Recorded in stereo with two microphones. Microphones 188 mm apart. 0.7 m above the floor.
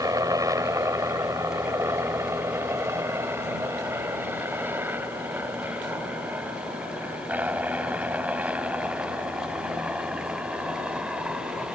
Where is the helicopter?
20° right (ahead or behind); by 11.8 s 5° right (ahead or behind).